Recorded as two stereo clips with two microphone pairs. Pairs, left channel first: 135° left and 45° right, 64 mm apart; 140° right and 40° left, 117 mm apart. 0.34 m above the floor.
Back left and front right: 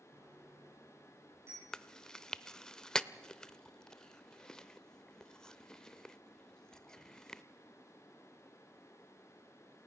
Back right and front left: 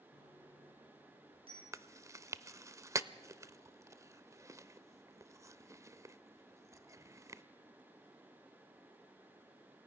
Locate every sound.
0.1 s a bicycle bell: straight ahead, 7 m
1.7 s chewing: 65° left, 0.5 m